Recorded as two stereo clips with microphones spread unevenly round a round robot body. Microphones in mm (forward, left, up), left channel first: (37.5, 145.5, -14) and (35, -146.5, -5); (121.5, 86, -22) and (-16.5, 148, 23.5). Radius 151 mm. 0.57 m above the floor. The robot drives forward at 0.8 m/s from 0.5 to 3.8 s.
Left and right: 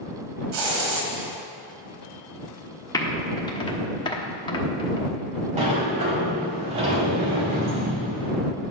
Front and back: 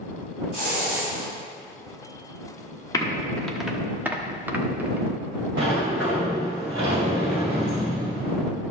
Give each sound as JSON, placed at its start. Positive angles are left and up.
{"t": 0.5, "sound": "a hiss", "azimuth_deg": -95, "distance_m": 1.8}
{"t": 2.9, "sound": "typing on a keyboard", "azimuth_deg": 15, "distance_m": 1.3}
{"t": 5.6, "sound": "a sliding door", "azimuth_deg": -160, "distance_m": 2.5}